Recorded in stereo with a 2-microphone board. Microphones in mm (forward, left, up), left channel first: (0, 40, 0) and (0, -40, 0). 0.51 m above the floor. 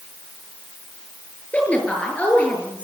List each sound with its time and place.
1.5 s a woman speaking: 15° left (ahead or behind), 7.5 m